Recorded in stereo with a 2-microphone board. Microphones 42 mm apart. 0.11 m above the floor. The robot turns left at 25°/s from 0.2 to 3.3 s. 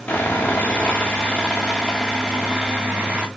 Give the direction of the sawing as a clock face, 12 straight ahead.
11 o'clock.